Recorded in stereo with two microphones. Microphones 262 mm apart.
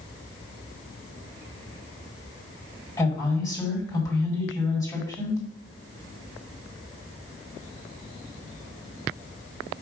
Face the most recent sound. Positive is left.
turn(degrees=15)  # may be behind; listen again after turning